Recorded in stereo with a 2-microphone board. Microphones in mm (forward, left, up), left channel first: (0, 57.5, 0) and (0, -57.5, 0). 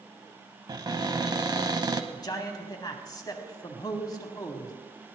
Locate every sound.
0.7 s a cupboard door: 40° right (ahead or behind), 0.8 m
2.1 s a man speaking: 35° left (ahead or behind), 1.4 m